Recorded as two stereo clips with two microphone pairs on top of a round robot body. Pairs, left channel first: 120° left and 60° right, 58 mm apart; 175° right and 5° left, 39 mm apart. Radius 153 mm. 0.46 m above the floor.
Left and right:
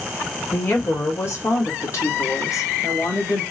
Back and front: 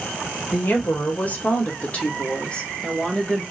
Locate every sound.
0.5 s a woman speaking: 170° left, 2.5 m; by 3.4 s 115° left, 1.9 m